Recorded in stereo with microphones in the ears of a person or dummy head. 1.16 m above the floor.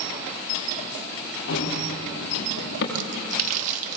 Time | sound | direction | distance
1.5 | running footsteps | 55° left (ahead or behind) | 6 m
3.0 | a splash | 50° right (ahead or behind) | 1.4 m